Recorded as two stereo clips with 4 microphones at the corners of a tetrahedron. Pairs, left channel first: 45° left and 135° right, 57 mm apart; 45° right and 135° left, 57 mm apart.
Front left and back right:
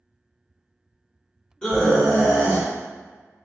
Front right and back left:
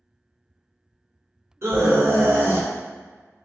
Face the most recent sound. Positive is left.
turn(degrees=100)